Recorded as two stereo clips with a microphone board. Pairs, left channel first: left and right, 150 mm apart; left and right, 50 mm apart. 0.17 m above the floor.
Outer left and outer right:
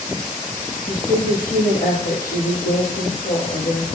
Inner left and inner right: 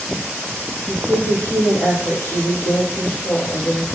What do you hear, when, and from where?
0.9 s a woman speaking: 75° left (ahead or behind), 6 m